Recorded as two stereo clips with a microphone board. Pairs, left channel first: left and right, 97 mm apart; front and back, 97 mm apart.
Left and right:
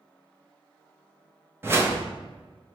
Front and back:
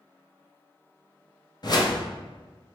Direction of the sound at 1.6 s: 30° right.